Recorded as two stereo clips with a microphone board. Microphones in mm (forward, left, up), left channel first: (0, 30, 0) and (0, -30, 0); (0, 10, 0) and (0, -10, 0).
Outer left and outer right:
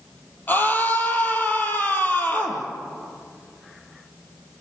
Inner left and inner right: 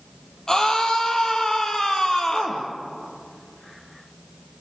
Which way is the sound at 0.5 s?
35° left (ahead or behind).